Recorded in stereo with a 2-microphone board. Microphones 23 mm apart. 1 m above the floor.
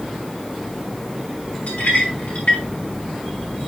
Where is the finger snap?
No finger snap in this recording.